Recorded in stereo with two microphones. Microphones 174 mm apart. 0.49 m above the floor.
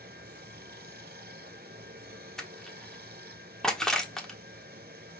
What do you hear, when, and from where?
0.0 s running water: 65° right (ahead or behind), 1.1 m
2.4 s crushing: 5° left (ahead or behind), 1.3 m